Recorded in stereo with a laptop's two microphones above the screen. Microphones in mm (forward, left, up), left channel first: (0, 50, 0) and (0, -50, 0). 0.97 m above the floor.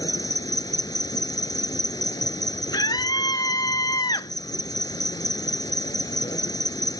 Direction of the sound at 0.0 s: 45° left (ahead or behind).